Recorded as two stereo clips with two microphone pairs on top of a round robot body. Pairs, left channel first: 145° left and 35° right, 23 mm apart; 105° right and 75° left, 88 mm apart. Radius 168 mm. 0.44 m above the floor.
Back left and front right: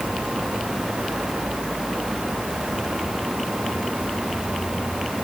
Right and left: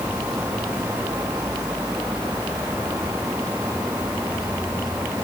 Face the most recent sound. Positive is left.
No sound to turn to.